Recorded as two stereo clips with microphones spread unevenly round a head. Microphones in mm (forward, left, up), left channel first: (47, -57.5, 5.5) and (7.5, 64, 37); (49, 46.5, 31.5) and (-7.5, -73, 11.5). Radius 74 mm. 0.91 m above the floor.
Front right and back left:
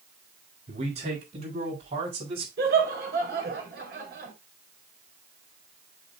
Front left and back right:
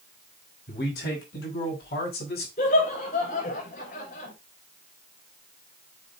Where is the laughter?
100° left, 4 m.